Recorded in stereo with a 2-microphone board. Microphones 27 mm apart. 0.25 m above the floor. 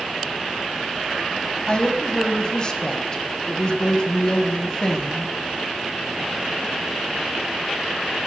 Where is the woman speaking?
35° left (ahead or behind), 1.2 m.